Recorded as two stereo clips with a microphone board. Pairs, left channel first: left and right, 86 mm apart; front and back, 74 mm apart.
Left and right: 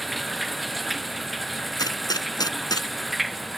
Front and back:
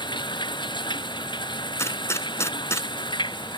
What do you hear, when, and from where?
0.0 s running water: straight ahead
1.8 s a gunshot: 50° left